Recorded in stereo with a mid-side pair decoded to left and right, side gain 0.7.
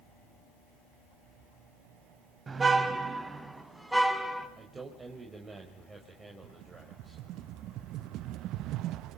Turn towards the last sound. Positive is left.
turn(degrees=-55)